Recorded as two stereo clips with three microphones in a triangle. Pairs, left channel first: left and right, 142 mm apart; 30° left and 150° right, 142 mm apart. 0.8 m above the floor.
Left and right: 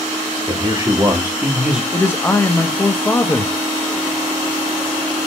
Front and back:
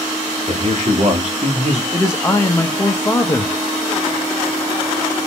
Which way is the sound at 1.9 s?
55° left.